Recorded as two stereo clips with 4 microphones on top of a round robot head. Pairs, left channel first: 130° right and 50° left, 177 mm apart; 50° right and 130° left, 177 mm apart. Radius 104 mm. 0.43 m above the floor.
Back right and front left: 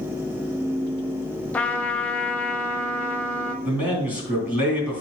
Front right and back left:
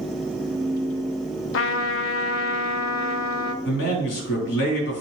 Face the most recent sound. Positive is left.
turn(degrees=-30)